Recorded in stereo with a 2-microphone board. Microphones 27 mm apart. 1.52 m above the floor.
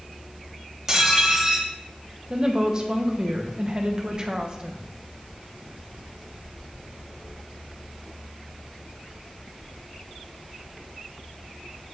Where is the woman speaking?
30° right (ahead or behind), 0.9 m.